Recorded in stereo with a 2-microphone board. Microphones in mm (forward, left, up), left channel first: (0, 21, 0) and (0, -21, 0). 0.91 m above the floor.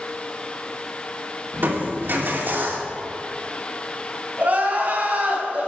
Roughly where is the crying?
Right.